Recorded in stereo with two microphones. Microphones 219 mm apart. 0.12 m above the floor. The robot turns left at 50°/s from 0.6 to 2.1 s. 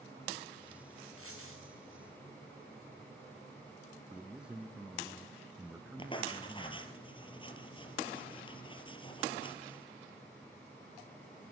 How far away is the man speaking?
About 1.1 m.